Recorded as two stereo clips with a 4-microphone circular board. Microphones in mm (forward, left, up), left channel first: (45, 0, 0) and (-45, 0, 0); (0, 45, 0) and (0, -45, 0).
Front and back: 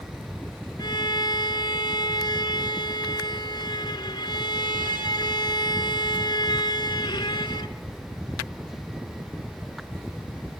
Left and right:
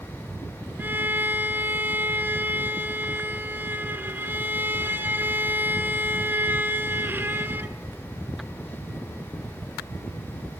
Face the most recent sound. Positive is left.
turn(degrees=-25)